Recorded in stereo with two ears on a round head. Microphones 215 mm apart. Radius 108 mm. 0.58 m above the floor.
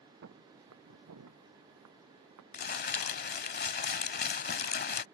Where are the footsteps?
55° right (ahead or behind); by 2.4 s 75° right (ahead or behind).